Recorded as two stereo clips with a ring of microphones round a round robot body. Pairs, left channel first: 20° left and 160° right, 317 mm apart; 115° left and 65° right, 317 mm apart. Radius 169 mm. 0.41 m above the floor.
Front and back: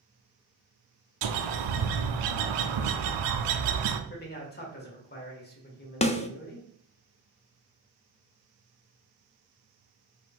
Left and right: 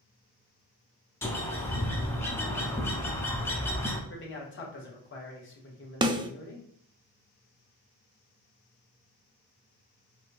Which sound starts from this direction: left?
A man speaking, at 4.1 s.